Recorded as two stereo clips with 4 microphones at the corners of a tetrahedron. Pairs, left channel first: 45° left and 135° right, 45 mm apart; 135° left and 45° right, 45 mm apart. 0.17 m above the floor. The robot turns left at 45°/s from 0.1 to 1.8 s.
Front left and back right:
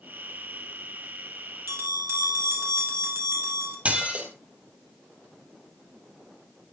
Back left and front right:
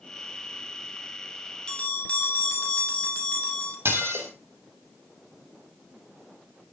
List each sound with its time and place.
1.7 s a bell: 155° right, 3.5 m; by 3.8 s 165° right, 3.5 m
3.9 s dishes clattering: 75° right, 3 m